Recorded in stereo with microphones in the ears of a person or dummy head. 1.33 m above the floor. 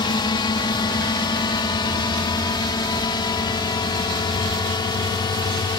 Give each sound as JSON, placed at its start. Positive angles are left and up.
{"t": 0.0, "sound": "a drone", "side_deg": 20}